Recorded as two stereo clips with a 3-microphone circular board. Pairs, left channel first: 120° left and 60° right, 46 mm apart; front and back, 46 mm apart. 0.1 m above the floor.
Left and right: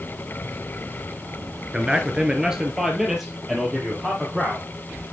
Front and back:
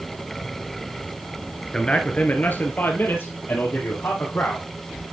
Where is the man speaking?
45° right, 1.3 m; by 4.7 s 25° left, 4 m.